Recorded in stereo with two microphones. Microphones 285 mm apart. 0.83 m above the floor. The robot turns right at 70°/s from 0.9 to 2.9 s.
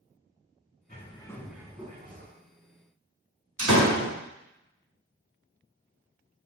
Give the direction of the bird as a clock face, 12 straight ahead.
7 o'clock.